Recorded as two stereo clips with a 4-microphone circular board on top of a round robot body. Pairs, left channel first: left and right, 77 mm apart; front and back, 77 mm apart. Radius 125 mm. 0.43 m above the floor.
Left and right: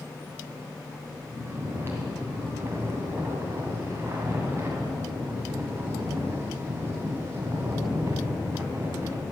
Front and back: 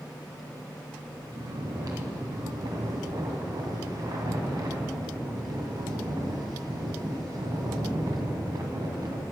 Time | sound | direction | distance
1.3 | snoring | 150° right | 2 m